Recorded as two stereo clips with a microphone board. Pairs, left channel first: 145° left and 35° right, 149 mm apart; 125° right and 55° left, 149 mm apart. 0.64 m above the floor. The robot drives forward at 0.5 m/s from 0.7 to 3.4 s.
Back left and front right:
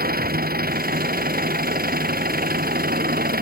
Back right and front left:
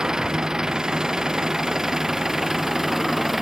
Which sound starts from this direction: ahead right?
An engine running, at 0.0 s.